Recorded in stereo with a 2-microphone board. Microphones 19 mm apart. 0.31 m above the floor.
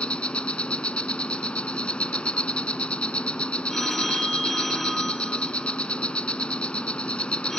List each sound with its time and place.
0.0 s an insect: 75° left (ahead or behind), 1.0 m
3.7 s a phone ringing: 10° left (ahead or behind), 2 m